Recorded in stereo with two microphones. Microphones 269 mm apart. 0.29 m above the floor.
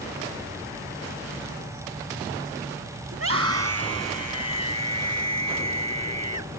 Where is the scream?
60° right (ahead or behind); by 6.5 s 80° right.